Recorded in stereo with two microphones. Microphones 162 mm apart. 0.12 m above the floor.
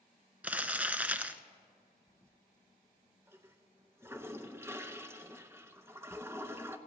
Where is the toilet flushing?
15° right (ahead or behind), 0.6 m.